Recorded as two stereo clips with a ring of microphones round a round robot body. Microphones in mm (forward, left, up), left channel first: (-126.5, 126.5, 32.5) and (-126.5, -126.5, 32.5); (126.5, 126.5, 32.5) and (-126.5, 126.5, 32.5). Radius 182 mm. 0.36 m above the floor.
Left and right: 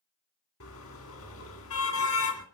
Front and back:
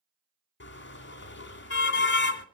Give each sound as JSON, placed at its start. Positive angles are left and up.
{"t": 0.6, "sound": "a car horn", "azimuth_deg": 45, "distance_m": 2.0}